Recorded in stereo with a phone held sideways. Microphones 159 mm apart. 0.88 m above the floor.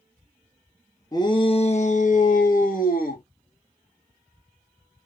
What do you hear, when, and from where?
1.1 s a shout: 25° left (ahead or behind), 0.7 m; by 3.2 s 65° left (ahead or behind), 1.5 m